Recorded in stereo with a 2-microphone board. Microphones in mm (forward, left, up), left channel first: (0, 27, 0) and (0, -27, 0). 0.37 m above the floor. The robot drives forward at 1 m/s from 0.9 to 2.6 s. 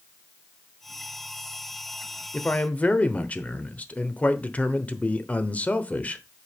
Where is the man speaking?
25° left (ahead or behind), 1.0 m.